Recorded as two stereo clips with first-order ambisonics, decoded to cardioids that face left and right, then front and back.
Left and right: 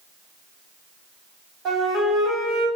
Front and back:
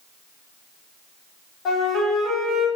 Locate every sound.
1.6 s a flute: 40° right, 1.6 m